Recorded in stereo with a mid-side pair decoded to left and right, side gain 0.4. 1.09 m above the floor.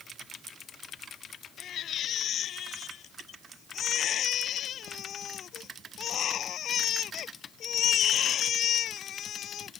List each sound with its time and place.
1.6 s a baby crying: 65° left